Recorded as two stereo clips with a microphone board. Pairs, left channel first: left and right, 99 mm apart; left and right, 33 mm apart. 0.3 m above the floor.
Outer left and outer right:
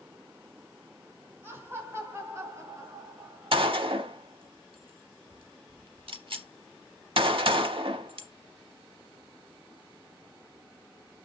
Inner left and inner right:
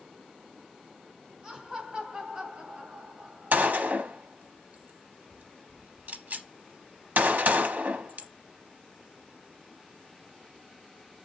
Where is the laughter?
20° right (ahead or behind), 2.0 m; by 3.8 s 40° right (ahead or behind), 1.5 m.